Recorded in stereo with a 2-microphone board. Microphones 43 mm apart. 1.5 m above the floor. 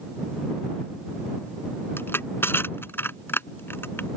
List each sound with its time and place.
2.0 s crushing: 60° left (ahead or behind)